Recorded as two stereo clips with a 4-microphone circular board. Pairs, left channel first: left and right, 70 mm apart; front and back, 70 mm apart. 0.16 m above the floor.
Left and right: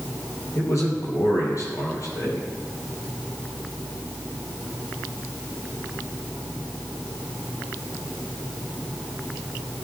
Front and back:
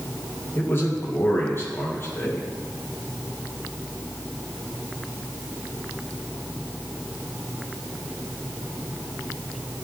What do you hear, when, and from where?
0.6 s a man speaking: 55° left, 4.5 m